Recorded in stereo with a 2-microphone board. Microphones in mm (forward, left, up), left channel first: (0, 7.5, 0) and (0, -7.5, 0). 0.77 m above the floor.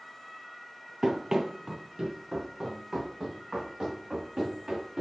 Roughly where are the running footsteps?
Right.